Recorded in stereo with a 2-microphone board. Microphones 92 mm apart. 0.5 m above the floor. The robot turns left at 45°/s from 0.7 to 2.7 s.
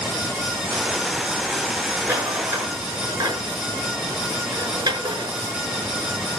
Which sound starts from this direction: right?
A rattle, at 2.0 s.